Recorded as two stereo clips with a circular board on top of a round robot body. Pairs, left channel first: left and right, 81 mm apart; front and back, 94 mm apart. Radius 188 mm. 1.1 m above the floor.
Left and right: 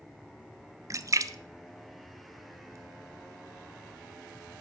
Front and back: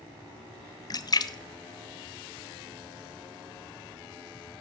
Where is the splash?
45° right, 0.8 m.